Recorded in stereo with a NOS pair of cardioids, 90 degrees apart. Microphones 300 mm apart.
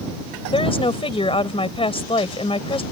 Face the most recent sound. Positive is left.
turn(degrees=20)